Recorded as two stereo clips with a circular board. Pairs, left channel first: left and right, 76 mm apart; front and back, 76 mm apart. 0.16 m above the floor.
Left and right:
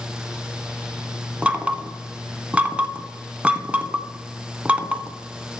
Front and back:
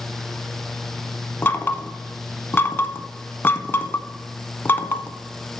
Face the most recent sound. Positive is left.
turn(degrees=-30)